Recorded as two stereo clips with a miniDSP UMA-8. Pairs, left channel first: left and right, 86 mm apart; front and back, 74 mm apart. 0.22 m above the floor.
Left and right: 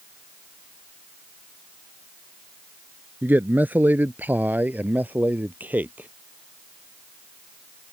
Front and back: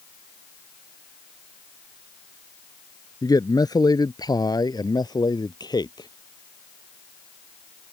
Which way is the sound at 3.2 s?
25° right.